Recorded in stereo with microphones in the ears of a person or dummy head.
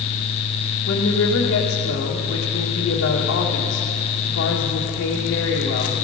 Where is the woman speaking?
60° left (ahead or behind), 1.6 m.